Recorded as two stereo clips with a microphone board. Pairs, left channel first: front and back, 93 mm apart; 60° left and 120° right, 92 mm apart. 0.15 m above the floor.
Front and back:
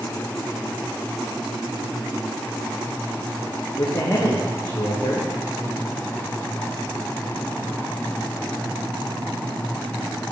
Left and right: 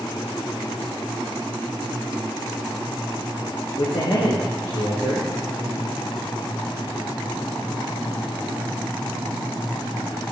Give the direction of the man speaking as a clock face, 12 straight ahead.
11 o'clock.